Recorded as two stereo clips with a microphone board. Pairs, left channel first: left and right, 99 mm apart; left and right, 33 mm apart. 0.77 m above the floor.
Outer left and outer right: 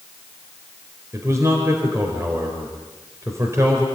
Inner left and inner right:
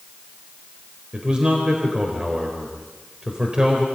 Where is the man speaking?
30° right (ahead or behind), 4 m.